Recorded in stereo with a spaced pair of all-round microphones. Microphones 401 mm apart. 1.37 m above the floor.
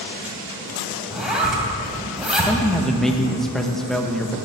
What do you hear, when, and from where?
1.1 s a zipper: centre (ahead or behind), 2 m
2.5 s a man speaking: centre (ahead or behind), 1.1 m